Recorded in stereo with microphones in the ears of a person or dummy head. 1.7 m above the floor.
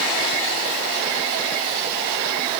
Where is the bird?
No bird in this recording.